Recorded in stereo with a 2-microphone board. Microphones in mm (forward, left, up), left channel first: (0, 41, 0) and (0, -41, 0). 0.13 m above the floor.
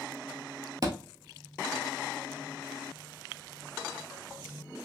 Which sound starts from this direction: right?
A thud, at 0.8 s.